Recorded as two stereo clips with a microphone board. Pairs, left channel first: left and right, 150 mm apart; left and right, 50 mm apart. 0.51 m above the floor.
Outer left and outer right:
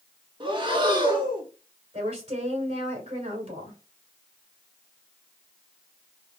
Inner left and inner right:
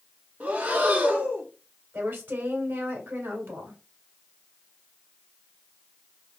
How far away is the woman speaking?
About 2.5 m.